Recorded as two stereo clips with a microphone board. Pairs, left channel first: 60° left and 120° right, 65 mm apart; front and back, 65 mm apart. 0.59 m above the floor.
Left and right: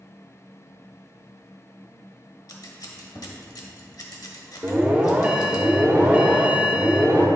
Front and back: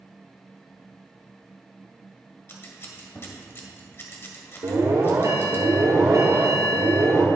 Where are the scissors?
50° left, 1.1 m.